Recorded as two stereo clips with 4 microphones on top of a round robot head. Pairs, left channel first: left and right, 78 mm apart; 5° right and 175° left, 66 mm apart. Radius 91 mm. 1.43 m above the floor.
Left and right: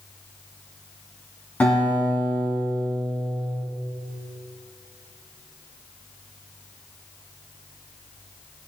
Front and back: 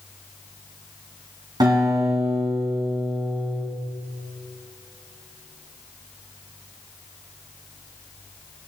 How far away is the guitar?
About 3 m.